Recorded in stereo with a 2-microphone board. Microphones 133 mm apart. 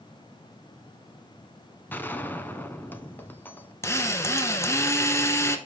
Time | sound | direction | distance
1.9 | a gunshot | 15° left (ahead or behind) | 0.8 m
3.8 | a drill | 20° left (ahead or behind) | 1.2 m